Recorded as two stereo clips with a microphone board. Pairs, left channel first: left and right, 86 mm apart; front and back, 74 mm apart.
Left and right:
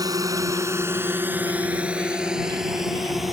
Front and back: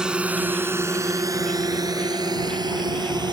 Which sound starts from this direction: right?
A drone, at 0.0 s.